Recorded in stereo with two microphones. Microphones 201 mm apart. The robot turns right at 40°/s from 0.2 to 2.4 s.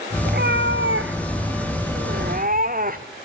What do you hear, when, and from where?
0.2 s a cat meowing: 130° right, 1.7 m; by 3.0 s 45° right, 1.7 m